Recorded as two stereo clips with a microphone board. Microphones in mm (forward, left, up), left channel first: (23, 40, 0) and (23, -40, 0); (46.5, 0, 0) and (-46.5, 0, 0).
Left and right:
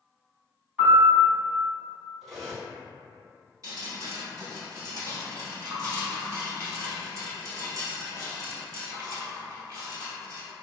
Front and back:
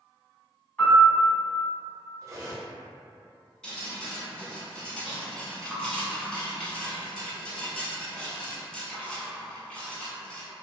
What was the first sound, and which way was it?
A piano, 45° right.